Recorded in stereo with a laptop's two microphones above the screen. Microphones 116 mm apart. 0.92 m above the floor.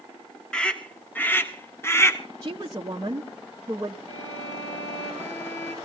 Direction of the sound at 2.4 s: 35° right (ahead or behind).